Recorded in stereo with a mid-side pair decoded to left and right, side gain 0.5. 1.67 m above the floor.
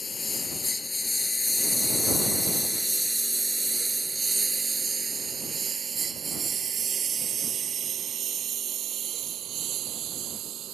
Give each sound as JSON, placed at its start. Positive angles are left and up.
{"t": 0.0, "sound": "a lawn mower", "azimuth_deg": 30}